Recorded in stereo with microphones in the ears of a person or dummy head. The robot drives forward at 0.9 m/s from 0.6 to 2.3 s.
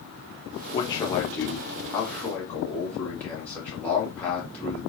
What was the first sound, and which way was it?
A man speaking, 25° left (ahead or behind).